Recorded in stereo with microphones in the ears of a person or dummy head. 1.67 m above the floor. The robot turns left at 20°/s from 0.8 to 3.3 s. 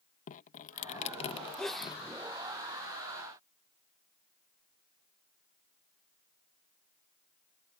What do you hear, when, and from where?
0.3 s dripping: 40° left (ahead or behind); by 2.0 s 15° left (ahead or behind)
1.6 s a sneeze: 5° left (ahead or behind); by 2.0 s 5° right (ahead or behind)